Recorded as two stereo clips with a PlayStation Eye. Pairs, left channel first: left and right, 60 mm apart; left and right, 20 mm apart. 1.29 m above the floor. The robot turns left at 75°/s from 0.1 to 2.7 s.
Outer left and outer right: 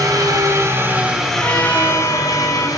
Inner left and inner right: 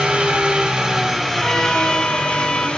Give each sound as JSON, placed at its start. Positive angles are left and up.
{"t": 0.0, "sound": "an engine running", "azimuth_deg": -90, "distance_m": 2.5}
{"t": 1.4, "sound": "a trumpet", "azimuth_deg": 140, "distance_m": 2.5}